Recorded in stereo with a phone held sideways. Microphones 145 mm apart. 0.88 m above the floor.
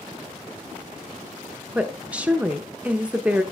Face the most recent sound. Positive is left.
turn(degrees=-10)  # may be behind; listen again after turning